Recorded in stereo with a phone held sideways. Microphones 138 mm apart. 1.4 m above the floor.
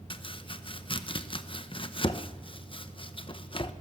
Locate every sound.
0.1 s chopping: 40° left (ahead or behind), 0.9 m